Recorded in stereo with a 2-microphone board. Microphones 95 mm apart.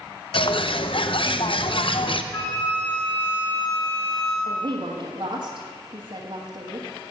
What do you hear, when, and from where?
0.3 s a bird: 65° left (ahead or behind), 0.6 m
2.3 s a flute: 55° left (ahead or behind), 3 m
4.5 s a woman speaking: 55° right (ahead or behind), 1.3 m